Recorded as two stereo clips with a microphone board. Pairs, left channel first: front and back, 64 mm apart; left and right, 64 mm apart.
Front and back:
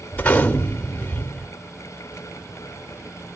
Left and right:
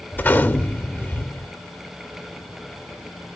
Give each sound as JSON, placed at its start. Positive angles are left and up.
{"t": 0.1, "sound": "a gunshot", "azimuth_deg": 55, "distance_m": 1.3}